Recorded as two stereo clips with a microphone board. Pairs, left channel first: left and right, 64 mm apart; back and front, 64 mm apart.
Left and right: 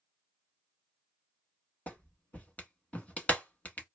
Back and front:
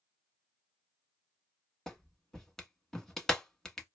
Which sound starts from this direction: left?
A clap, at 1.9 s.